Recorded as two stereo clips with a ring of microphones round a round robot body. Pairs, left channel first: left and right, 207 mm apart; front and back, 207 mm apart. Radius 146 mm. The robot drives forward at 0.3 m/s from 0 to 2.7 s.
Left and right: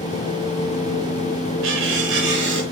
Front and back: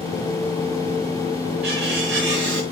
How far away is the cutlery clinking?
About 1.4 m.